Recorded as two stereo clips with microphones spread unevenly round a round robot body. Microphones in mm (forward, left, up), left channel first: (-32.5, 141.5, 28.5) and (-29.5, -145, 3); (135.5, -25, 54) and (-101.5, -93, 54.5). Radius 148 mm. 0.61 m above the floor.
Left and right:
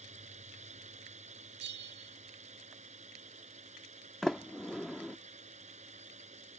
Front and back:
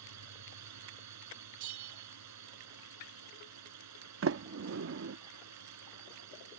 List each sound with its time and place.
0.0 s a drone: 155° right
1.6 s a bell: 145° right
4.2 s a sliding door: straight behind